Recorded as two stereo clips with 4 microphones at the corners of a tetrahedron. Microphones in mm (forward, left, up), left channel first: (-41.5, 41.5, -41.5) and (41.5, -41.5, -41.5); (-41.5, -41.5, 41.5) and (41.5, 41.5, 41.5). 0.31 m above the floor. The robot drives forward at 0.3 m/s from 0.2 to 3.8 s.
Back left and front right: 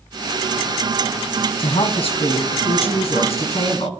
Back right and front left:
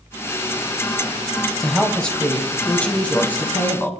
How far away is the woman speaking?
About 1.7 m.